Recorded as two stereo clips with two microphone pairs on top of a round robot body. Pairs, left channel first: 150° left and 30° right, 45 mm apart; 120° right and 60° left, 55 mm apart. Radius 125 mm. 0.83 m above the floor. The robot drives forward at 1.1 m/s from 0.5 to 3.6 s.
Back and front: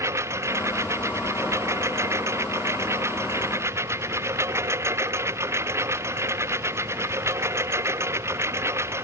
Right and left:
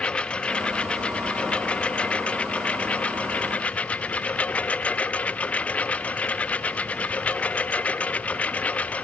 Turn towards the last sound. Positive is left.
turn(degrees=-55)